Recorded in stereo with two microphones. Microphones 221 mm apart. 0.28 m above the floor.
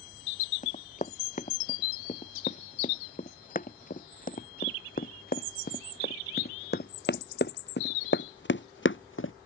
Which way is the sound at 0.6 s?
35° left (ahead or behind).